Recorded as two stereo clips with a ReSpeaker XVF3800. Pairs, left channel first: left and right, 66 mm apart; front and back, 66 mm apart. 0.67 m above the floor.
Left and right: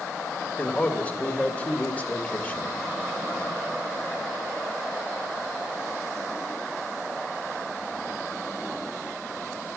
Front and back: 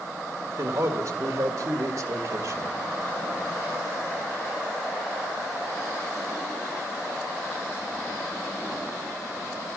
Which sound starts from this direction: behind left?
A man speaking, at 0.6 s.